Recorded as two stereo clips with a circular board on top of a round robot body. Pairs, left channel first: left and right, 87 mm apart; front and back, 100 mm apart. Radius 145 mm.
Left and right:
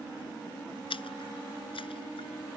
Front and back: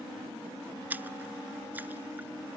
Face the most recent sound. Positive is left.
turn(degrees=110)